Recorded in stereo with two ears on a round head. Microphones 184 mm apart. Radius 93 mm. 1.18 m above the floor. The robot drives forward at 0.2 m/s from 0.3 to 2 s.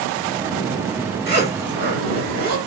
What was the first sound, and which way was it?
A zipper, 50° right (ahead or behind).